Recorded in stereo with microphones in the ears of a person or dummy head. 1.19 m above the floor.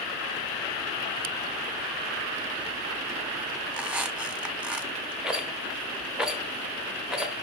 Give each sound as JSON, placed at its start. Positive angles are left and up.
{"t": 3.7, "sound": "a squeak", "side_deg": -5, "distance_m": 0.8}
{"t": 5.2, "sound": "a rattle", "side_deg": -5, "distance_m": 1.1}